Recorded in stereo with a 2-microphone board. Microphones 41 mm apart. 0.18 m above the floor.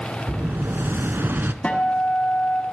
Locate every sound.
0.3 s an explosion: 60° right (ahead or behind), 0.5 m
1.6 s a guitar: 25° left (ahead or behind), 1.2 m